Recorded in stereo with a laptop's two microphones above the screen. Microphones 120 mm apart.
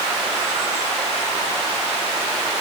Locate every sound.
Only background noise.